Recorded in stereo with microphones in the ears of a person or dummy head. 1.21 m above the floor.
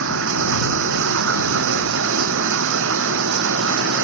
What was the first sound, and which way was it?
Running water, 65° right (ahead or behind).